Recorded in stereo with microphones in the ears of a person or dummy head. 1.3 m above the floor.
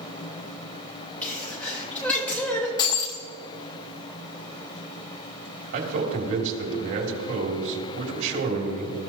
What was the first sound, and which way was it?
A sneeze, 10° left (ahead or behind).